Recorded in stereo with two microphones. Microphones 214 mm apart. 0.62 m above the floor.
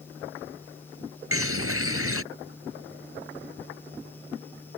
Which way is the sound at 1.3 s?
75° right (ahead or behind).